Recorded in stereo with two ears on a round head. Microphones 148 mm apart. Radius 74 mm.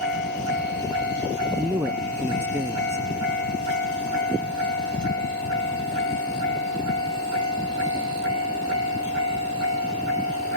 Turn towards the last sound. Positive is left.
turn(degrees=-15)  # may be behind; listen again after turning